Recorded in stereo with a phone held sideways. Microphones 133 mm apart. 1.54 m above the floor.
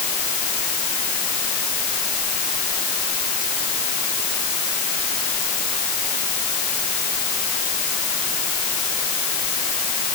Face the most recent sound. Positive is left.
No sound to turn to.